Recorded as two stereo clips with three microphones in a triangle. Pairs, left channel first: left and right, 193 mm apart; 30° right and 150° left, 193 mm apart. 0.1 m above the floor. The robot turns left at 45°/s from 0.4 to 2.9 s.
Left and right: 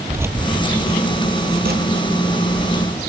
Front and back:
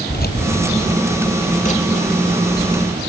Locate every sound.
0.1 s keys jangling: 15° right, 1.7 m; by 3.0 s 125° right, 1.7 m